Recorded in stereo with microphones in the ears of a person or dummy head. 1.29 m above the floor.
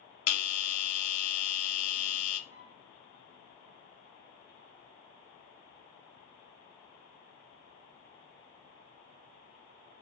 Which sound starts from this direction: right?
A flute, at 2.5 s.